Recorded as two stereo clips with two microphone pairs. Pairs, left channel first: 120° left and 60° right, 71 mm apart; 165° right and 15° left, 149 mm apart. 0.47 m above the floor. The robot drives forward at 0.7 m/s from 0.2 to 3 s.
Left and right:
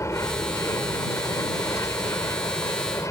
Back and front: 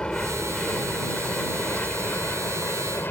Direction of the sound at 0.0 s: 110° left.